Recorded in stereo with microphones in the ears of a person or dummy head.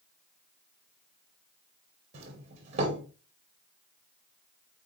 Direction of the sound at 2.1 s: 40° right (ahead or behind).